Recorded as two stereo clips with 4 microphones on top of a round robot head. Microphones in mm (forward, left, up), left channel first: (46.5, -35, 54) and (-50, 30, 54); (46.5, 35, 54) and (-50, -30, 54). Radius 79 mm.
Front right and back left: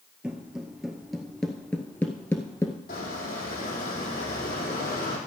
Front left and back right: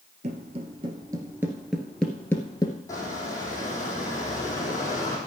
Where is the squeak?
30° right, 3.5 m.